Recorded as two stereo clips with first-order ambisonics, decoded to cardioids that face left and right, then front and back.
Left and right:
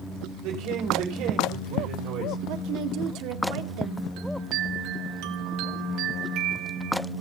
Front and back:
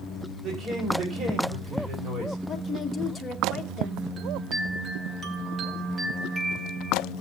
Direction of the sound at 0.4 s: 120° right.